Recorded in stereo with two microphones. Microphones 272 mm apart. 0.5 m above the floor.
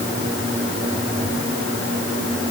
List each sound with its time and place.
Only background noise.